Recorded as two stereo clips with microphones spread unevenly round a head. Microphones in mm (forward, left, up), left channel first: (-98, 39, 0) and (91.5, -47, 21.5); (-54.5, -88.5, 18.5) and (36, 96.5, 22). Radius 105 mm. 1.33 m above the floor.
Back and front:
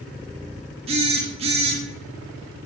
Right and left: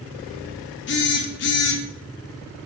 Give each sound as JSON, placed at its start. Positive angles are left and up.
{"t": 0.9, "sound": "a phone buzzing", "azimuth_deg": -90, "distance_m": 0.5}